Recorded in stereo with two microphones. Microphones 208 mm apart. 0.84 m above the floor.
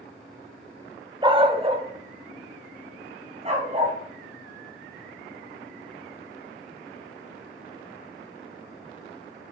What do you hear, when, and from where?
1.2 s a dog barking: 20° right (ahead or behind), 0.6 m; by 4.0 s 30° right (ahead or behind), 2 m